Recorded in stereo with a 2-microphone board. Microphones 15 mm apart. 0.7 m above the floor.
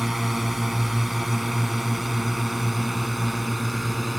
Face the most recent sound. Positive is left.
turn(degrees=-5)  # may be behind; listen again after turning